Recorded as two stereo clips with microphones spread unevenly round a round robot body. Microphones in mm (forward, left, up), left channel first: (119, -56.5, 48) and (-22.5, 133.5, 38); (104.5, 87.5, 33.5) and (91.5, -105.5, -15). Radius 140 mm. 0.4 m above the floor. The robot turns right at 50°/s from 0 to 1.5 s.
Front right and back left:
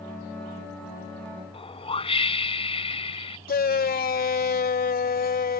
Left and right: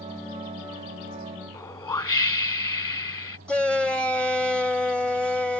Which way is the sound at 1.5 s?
15° left.